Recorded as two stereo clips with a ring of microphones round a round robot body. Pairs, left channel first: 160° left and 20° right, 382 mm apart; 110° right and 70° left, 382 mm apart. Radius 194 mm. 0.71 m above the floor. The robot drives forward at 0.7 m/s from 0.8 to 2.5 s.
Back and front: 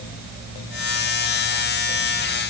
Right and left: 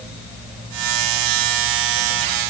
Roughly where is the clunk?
I don't hear a clunk.